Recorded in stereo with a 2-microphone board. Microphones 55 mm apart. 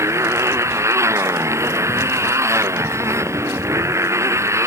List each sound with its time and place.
0.0 s a motorcycle: 60° right (ahead or behind)